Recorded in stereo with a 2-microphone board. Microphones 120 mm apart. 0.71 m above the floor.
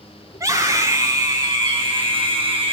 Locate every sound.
0.3 s a scream: 30° right (ahead or behind), 7.5 m; by 2.7 s 50° right (ahead or behind), 6.5 m